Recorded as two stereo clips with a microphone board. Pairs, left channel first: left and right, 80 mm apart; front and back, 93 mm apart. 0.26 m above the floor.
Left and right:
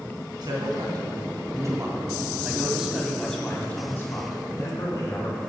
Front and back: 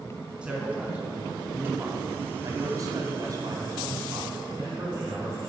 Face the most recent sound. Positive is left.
turn(degrees=125)